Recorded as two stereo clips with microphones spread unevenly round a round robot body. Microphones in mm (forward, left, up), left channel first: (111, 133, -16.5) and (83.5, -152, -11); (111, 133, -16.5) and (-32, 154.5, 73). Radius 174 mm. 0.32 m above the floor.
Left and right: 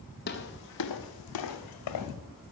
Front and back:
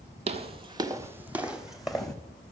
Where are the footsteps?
145° left, 0.9 m; by 2.1 s 85° left, 1.7 m.